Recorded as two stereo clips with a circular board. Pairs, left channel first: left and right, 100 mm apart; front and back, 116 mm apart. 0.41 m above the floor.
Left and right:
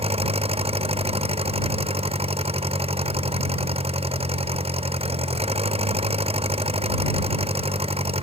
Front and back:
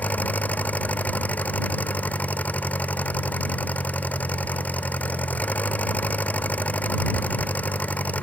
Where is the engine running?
75° right.